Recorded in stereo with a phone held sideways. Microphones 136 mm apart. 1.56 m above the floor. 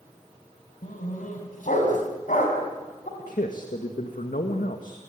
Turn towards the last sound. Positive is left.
turn(degrees=85)